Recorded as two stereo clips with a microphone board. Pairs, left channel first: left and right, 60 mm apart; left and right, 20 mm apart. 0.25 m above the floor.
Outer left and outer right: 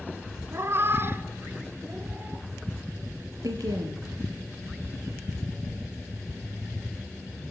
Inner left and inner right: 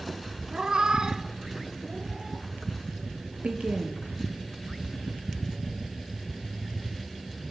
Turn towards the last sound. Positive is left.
turn(degrees=-75)  # may be behind; listen again after turning